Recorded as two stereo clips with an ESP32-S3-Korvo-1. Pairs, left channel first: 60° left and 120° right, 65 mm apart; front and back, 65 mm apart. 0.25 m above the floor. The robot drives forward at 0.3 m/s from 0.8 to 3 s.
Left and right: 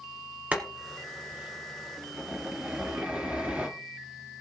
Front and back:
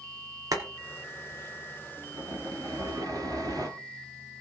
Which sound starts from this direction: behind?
Boiling, at 0.5 s.